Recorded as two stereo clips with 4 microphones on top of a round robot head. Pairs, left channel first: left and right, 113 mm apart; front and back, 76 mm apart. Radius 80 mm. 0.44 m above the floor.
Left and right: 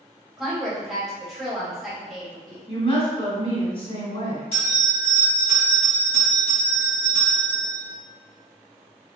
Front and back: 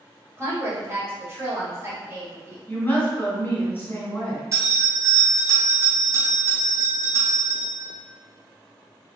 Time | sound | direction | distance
0.4 | a woman speaking | 175° right | 1.5 m
2.7 | a woman speaking | 60° left | 1.9 m
4.5 | a bell | 130° left | 1.6 m